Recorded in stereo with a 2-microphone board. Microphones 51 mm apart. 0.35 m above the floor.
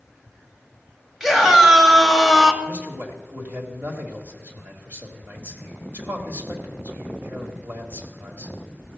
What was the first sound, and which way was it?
A scream, 5° right (ahead or behind).